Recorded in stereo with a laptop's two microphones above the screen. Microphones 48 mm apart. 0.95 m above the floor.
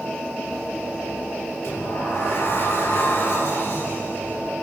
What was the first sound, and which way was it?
A sliding door, 55° left (ahead or behind).